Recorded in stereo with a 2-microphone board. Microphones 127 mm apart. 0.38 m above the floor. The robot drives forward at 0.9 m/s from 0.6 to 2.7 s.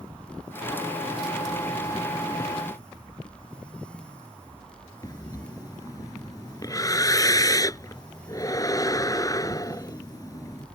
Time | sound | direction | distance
5.0 | breathing | 25° left (ahead or behind) | ?